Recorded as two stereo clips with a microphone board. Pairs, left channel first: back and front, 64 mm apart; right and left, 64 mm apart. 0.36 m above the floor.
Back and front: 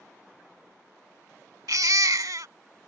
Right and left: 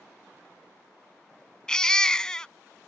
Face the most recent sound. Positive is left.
turn(degrees=-10)